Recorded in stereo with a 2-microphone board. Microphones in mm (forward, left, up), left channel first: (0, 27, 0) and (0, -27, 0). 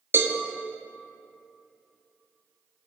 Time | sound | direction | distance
0.1 | a cowbell | 55° right (ahead or behind) | 0.7 m